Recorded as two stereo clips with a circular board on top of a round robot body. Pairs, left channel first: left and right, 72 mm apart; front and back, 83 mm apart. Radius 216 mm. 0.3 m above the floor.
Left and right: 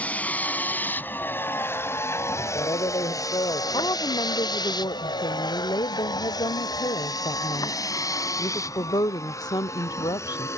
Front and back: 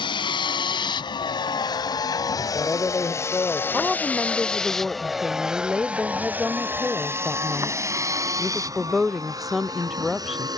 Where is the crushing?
No crushing in this recording.